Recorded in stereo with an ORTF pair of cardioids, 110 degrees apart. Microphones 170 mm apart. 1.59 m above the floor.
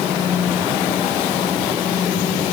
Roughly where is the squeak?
I don't hear a squeak.